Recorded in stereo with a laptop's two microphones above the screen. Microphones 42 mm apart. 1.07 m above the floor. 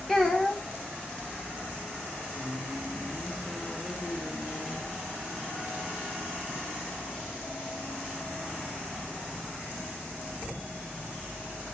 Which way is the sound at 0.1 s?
5° left (ahead or behind).